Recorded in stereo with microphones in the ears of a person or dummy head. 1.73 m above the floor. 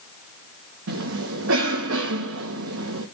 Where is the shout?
No shout in this recording.